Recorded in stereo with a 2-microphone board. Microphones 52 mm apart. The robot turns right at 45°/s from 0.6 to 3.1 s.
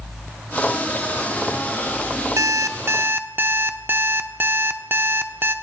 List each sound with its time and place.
2.4 s an alarm clock: 80° right, 0.6 m; by 5.5 s 45° right, 0.6 m